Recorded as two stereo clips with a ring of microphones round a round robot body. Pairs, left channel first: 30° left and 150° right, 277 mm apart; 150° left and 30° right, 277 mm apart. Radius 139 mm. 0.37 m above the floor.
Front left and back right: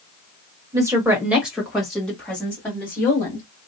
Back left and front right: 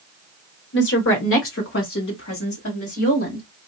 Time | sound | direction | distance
0.7 | a woman speaking | 140° left | 1.2 m